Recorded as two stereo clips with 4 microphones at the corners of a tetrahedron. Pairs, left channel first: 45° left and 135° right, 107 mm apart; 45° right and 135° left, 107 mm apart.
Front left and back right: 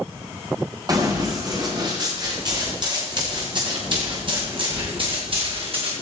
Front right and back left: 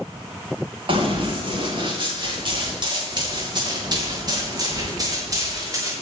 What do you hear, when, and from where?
0.9 s running footsteps: 175° left, 9.5 m; by 5.9 s 165° right, 6.5 m